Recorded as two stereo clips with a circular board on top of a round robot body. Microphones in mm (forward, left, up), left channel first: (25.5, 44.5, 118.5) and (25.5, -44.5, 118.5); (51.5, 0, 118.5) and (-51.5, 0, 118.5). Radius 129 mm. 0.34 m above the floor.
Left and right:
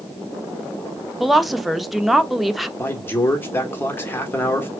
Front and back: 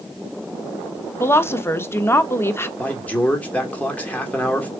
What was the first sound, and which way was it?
A woman speaking, 5° right.